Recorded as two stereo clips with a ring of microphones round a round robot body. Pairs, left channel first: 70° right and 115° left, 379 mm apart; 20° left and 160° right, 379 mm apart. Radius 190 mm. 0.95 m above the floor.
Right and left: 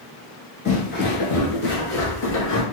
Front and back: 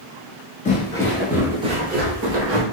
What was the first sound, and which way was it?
Footsteps, 20° right.